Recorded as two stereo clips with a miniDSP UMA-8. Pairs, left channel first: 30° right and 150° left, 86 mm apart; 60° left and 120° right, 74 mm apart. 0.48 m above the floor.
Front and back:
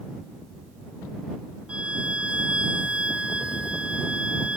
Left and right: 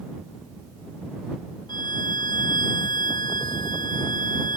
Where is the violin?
70° left.